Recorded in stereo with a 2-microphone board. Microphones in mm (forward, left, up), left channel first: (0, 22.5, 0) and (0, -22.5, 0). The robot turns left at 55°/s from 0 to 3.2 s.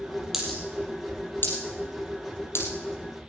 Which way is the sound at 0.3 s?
5° right (ahead or behind).